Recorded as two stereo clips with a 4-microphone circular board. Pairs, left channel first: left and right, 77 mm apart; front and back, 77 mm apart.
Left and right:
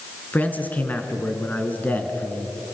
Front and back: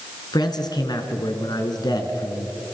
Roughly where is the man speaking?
Ahead.